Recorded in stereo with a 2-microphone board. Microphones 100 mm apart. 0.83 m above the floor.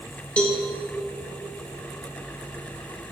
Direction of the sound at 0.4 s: 15° left (ahead or behind).